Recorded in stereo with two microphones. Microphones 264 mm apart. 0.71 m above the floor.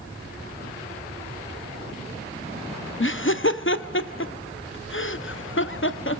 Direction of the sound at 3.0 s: 50° left (ahead or behind).